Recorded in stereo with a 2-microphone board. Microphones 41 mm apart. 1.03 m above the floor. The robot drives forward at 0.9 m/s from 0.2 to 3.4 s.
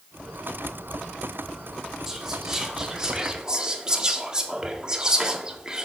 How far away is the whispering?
About 3 m.